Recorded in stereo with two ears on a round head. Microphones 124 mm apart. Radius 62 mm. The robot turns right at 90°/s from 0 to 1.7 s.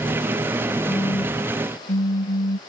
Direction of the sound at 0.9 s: 10° left.